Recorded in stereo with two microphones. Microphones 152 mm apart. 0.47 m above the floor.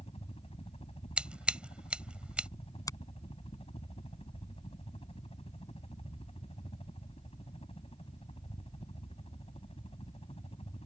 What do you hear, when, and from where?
0.0 s a helicopter: 45° left (ahead or behind)
1.2 s scissors: 10° right (ahead or behind)
2.9 s a finger snap: 25° left (ahead or behind)